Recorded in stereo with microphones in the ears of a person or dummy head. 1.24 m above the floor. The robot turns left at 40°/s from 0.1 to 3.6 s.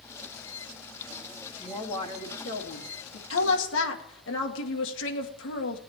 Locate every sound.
1.6 s a woman speaking: 160° left, 2 m; by 3.2 s 95° left, 2 m
3.3 s a woman speaking: 80° left, 2.0 m; by 5.8 s 70° left (ahead or behind), 2.0 m